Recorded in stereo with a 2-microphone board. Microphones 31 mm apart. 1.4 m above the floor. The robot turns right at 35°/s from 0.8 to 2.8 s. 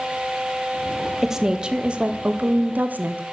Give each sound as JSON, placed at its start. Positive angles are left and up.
{"t": 1.2, "sound": "a woman speaking", "azimuth_deg": -170, "distance_m": 0.7}